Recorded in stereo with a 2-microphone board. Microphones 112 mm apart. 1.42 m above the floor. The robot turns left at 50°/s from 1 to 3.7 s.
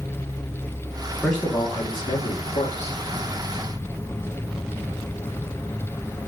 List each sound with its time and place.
1.2 s a man speaking: 175° left, 2.5 m; by 3.0 s 90° left, 2.5 m